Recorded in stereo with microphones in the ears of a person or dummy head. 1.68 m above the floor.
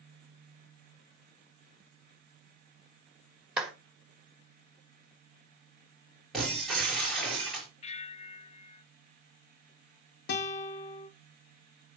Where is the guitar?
65° left (ahead or behind), 1.0 m.